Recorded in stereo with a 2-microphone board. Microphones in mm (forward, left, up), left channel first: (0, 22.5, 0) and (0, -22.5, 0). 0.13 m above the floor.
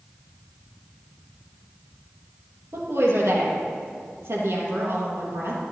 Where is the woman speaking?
70° right (ahead or behind), 3.5 m.